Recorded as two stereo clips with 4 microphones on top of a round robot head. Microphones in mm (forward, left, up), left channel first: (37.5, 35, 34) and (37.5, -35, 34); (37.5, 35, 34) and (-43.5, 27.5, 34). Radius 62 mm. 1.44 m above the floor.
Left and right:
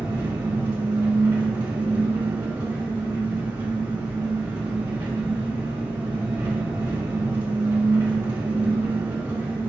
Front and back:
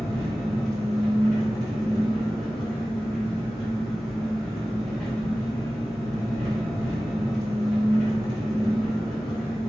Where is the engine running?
80° right, 1.9 m.